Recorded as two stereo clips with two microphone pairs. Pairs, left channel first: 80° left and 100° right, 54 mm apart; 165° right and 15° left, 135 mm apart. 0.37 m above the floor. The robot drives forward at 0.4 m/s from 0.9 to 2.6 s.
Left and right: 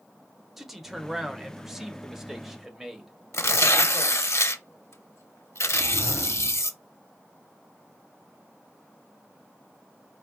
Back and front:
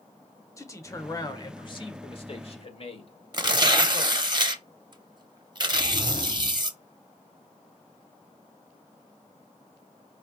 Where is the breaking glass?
I don't hear breaking glass.